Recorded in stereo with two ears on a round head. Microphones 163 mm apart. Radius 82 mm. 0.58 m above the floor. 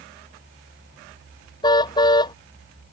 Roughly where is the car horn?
Left.